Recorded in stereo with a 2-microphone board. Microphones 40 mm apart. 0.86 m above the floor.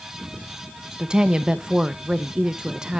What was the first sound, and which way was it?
A woman speaking, 20° right (ahead or behind).